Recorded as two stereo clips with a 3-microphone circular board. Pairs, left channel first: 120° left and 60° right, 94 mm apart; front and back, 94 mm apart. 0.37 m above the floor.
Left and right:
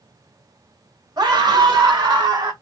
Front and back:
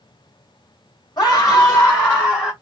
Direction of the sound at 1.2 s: 25° right.